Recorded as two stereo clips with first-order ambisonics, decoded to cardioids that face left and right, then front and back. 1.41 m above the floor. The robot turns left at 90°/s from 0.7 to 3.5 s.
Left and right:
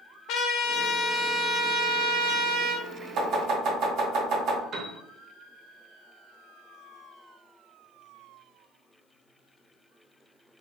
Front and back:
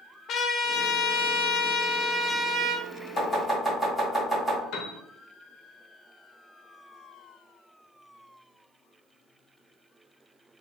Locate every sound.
0.3 s a trumpet: 50° left, 0.5 m; by 2.9 s 145° right, 0.5 m
3.2 s chopping: 50° right, 1.8 m; by 4.6 s 80° right, 1.8 m
4.7 s a piano: 35° right, 0.7 m